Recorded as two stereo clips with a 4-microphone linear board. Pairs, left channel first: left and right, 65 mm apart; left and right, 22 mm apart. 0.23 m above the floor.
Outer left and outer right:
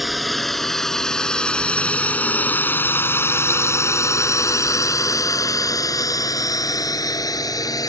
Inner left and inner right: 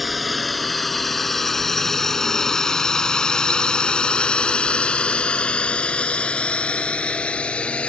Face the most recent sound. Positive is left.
turn(degrees=70)  # may be behind; listen again after turning